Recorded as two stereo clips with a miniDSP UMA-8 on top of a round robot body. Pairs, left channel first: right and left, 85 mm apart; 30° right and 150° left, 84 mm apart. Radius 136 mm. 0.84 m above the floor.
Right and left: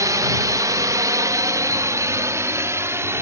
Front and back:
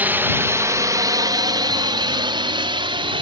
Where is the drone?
90° left; by 3.2 s 150° left.